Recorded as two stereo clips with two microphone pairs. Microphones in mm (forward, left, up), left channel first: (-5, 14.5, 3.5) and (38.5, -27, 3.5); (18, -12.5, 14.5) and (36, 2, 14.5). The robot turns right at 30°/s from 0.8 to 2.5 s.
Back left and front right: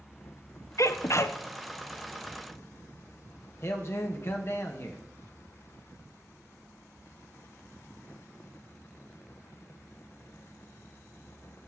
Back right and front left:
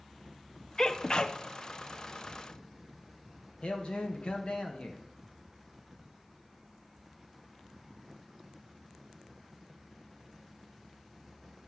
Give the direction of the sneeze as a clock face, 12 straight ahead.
7 o'clock.